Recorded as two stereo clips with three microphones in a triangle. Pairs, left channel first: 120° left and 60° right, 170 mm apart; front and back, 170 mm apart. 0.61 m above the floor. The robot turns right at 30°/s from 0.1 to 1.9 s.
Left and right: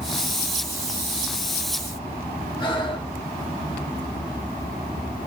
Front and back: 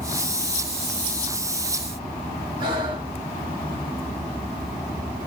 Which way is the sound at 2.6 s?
150° left.